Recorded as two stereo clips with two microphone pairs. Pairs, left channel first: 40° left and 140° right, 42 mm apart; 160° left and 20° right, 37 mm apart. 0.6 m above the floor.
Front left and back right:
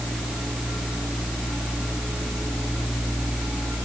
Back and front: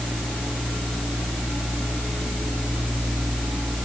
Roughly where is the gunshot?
I don't hear a gunshot.